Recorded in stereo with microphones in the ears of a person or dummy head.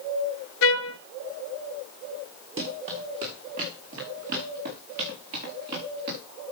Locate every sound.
0.6 s a trumpet: 60° left (ahead or behind), 0.6 m
2.6 s running footsteps: 30° right (ahead or behind), 4.5 m; by 6.2 s 50° right (ahead or behind), 7.5 m